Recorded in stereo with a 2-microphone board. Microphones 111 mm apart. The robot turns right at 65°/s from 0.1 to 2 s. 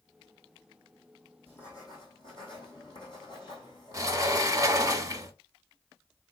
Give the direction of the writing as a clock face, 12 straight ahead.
11 o'clock.